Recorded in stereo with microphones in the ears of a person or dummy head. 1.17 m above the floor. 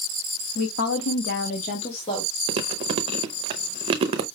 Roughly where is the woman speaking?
Left.